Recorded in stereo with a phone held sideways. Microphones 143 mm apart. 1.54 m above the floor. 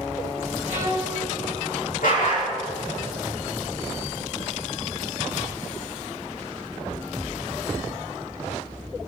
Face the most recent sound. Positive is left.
turn(degrees=75)  # may be behind; listen again after turning